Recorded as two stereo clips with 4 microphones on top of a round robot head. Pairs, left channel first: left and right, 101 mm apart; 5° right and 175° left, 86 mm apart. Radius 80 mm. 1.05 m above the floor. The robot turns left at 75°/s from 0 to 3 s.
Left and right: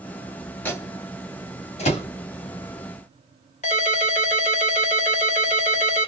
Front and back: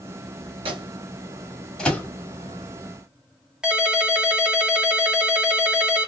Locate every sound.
0.7 s a microwave: 160° left, 1.8 m; by 2.1 s 55° left, 1.8 m
3.6 s a ringtone: 95° left, 1.3 m